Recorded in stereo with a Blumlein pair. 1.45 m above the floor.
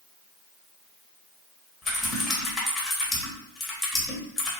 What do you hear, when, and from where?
1.8 s typing on a keyboard: 5° left, 1.5 m